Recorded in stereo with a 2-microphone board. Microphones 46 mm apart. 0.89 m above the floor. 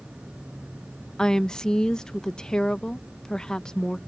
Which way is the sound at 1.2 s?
15° left (ahead or behind).